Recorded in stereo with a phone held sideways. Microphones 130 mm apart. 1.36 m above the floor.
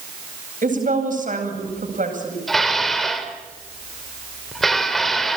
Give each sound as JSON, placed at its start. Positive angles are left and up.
{"t": 0.6, "sound": "a woman speaking", "side_deg": -80, "distance_m": 8.5}
{"t": 2.5, "sound": "dishes clattering", "side_deg": 0, "distance_m": 3.0}